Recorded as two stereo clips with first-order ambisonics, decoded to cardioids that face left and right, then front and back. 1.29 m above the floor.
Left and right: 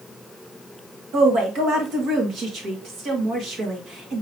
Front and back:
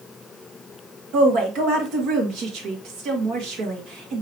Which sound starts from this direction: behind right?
A woman speaking, at 1.1 s.